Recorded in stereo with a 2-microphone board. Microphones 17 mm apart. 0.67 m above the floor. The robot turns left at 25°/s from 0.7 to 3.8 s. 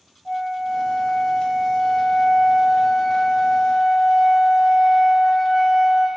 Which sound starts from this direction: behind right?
A flute, at 0.2 s.